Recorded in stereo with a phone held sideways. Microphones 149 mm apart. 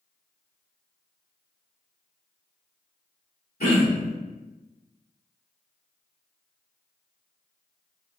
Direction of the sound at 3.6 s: 75° left (ahead or behind).